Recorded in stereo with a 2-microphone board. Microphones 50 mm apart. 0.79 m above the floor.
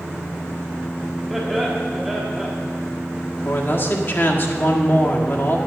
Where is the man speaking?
45° left (ahead or behind), 1.5 m.